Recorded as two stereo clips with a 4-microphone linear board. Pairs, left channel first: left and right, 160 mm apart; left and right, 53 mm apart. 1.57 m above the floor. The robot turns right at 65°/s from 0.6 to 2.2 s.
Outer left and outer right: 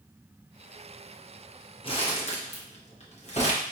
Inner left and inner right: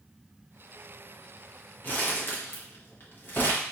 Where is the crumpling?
35° left (ahead or behind), 1.0 m; by 3.6 s 45° left (ahead or behind), 1.0 m.